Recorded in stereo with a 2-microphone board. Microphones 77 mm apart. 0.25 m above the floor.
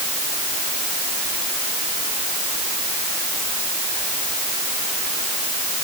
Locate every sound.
Only background noise.